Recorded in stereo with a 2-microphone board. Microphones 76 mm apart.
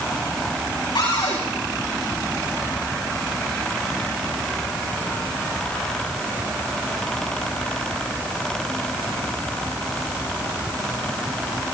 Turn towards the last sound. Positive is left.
turn(degrees=70)  # may be behind; listen again after turning